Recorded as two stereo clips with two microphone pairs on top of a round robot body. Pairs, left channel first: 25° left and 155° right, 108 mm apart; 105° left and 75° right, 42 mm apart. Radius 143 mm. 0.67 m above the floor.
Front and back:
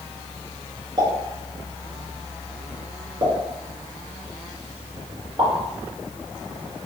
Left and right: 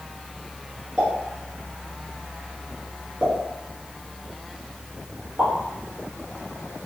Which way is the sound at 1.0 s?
120° right.